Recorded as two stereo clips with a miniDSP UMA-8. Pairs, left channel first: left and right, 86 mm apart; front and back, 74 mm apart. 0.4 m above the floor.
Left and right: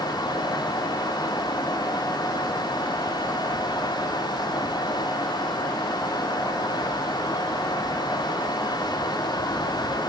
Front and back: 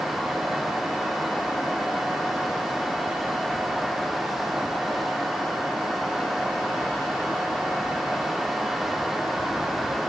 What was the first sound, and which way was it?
Only background noise.